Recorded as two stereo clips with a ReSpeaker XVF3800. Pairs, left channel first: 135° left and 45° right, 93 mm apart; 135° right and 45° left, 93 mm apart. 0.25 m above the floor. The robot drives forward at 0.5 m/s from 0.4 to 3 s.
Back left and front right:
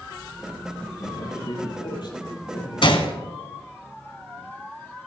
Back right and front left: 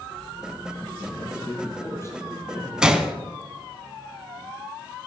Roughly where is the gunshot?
Behind left.